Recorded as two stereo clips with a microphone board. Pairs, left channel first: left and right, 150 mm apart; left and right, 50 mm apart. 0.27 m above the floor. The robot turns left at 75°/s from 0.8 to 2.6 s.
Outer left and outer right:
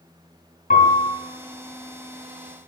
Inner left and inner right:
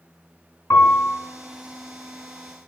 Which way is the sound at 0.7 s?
65° left (ahead or behind).